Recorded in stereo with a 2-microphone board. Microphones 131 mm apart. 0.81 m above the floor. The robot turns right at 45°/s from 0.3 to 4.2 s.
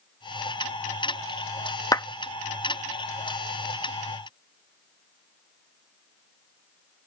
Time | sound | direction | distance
1.9 | a clap | 25° left (ahead or behind) | ?